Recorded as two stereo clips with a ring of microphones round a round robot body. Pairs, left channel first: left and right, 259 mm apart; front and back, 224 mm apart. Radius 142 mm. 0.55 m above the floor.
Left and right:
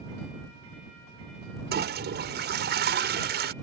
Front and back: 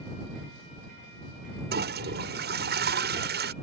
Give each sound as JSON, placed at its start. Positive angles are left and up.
{"t": 1.7, "sound": "a toilet flushing", "azimuth_deg": -140}